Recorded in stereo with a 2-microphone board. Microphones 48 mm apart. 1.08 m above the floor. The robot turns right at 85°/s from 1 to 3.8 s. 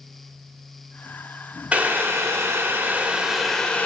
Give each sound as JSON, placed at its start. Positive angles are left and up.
{"t": 1.7, "sound": "boiling", "azimuth_deg": -150, "distance_m": 1.0}